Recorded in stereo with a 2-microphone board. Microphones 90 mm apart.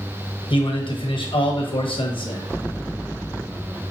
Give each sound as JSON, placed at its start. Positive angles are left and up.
{"t": 0.5, "sound": "a man speaking", "side_deg": 75, "distance_m": 1.1}